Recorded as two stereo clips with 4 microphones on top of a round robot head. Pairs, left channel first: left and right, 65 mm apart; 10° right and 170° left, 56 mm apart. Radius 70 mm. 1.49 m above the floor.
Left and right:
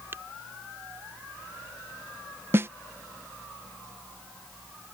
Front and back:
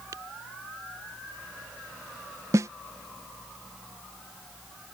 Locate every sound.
0.1 s tapping: 145° right
2.5 s a snare drum: 145° right